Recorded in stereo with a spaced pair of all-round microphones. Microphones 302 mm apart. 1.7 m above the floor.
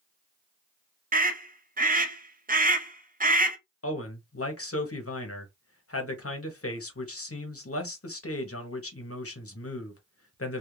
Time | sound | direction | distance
1.1 | a scream | 25° right (ahead or behind) | 0.6 m
3.8 | a man speaking | 45° left (ahead or behind) | 0.7 m